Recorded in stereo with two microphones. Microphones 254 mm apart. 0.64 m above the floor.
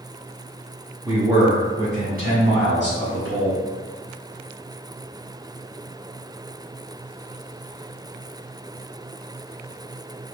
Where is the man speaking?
5° right (ahead or behind), 0.9 m; by 3.6 s 60° right (ahead or behind), 1.6 m.